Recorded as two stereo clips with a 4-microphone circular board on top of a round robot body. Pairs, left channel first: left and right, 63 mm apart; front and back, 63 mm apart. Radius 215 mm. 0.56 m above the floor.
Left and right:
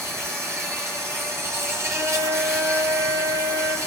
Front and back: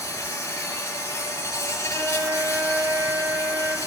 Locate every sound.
0.0 s an insect: 45° right, 5 m
1.9 s a flute: 125° right, 3 m